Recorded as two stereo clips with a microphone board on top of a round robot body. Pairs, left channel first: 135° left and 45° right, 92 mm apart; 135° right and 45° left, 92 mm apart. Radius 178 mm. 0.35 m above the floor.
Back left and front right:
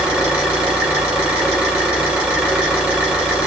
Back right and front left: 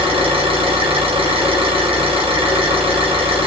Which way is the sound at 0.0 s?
35° left.